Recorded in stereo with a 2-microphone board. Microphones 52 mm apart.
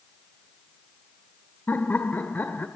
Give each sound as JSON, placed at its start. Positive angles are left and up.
{"t": 1.7, "sound": "laughter", "side_deg": 35, "distance_m": 1.3}